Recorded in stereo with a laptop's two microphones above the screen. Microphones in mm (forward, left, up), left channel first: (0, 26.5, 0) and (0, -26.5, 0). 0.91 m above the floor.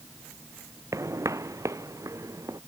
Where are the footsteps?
70° right (ahead or behind).